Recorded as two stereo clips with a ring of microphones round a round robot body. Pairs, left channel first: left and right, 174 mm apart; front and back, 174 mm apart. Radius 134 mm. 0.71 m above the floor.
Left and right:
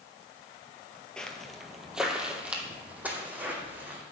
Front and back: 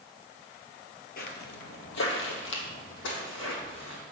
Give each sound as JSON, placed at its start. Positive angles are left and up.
{"t": 1.2, "sound": "footsteps", "azimuth_deg": 5, "distance_m": 1.0}